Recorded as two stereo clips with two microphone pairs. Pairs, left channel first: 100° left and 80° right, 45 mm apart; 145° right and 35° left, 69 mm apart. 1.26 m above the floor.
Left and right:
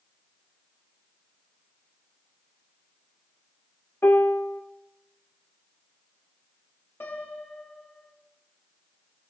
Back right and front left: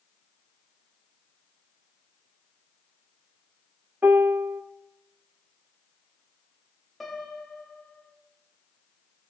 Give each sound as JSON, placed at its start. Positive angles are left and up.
{"t": 4.0, "sound": "a piano", "azimuth_deg": 90, "distance_m": 1.2}
{"t": 7.0, "sound": "a piano", "azimuth_deg": 130, "distance_m": 2.5}